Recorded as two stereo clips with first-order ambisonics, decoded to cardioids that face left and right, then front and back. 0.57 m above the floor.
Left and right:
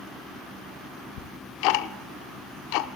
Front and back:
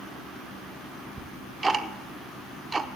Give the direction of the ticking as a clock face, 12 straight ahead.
9 o'clock.